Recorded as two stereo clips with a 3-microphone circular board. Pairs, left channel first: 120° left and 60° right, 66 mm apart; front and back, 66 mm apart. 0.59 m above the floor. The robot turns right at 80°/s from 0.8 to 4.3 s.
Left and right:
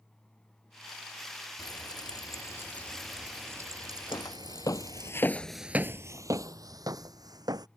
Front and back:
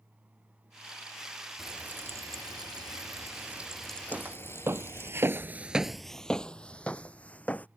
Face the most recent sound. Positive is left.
turn(degrees=-65)